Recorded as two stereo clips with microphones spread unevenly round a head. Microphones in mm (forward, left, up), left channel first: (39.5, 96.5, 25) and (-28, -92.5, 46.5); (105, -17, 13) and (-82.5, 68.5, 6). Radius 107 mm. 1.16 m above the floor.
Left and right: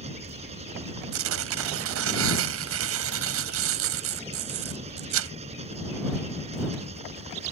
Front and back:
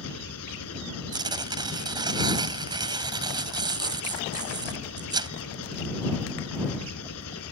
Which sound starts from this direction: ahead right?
An engine running, at 0.0 s.